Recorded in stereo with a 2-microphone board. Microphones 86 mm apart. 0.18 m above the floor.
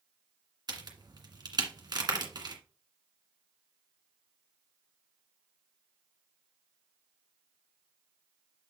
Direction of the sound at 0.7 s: 55° right (ahead or behind).